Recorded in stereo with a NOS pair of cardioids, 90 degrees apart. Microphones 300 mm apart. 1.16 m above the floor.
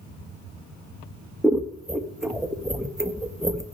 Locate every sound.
1.4 s scissors: straight ahead, 0.8 m